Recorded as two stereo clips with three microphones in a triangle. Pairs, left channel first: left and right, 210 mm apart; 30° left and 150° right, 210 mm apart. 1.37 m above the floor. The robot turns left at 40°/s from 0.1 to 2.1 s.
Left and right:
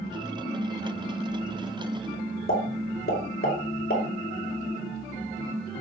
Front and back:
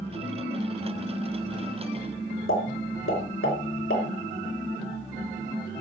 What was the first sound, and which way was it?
A pop, 45° left.